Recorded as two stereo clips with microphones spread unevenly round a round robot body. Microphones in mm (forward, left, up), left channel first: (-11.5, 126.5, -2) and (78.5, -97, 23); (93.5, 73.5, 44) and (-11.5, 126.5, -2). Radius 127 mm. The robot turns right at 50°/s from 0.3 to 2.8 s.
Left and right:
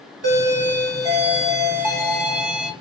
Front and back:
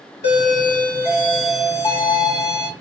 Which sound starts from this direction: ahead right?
A doorbell, at 0.2 s.